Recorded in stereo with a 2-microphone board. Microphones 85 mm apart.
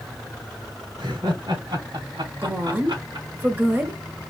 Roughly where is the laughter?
Right.